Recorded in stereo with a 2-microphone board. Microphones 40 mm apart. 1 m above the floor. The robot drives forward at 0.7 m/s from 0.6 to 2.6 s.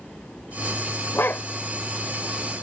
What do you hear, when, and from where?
1.1 s a dog barking: 70° left (ahead or behind); by 1.4 s 65° left (ahead or behind)